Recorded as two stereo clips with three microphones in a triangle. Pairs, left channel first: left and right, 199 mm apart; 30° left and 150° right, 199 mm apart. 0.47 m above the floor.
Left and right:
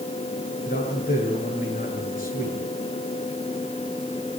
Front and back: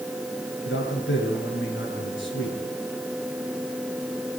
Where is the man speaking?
45° left, 8.5 m.